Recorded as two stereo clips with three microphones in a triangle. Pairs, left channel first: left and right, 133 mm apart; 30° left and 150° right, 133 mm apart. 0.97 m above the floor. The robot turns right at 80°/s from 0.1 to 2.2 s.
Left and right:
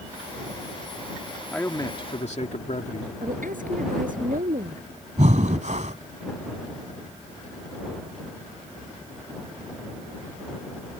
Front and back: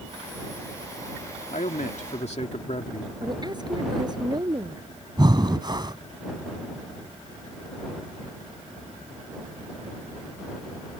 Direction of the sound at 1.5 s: 5° left.